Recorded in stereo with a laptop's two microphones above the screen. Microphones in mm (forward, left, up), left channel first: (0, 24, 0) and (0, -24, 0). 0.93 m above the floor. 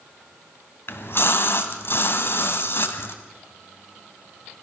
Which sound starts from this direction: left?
A splash, at 0.9 s.